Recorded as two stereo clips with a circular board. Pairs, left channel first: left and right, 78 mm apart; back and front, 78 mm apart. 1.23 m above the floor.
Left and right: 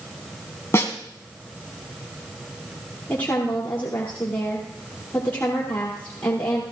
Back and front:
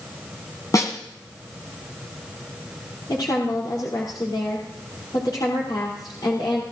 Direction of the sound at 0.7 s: 140° left.